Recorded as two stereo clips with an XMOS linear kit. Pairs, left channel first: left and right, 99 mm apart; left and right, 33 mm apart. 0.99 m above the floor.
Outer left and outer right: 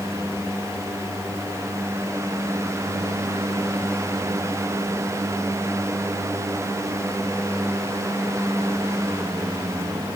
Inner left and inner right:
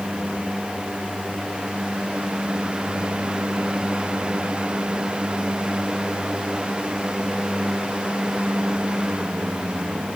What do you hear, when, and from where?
Only background noise.